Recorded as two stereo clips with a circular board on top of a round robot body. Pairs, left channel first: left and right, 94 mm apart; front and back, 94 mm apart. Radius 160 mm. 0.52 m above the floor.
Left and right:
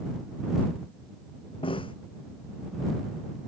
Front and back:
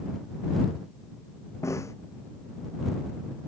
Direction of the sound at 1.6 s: 60° left.